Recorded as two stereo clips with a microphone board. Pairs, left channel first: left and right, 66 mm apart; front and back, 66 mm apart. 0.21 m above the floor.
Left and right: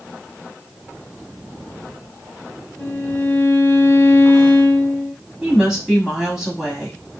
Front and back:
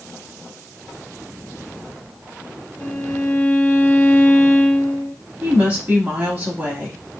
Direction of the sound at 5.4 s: 160° right.